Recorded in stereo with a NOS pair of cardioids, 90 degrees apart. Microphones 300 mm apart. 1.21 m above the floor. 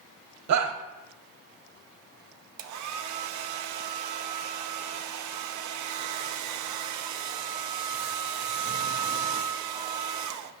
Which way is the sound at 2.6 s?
65° right.